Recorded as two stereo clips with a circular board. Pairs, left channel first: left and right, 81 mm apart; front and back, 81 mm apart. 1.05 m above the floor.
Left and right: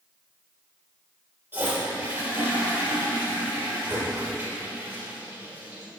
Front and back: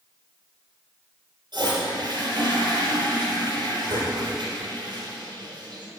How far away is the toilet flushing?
About 4.5 m.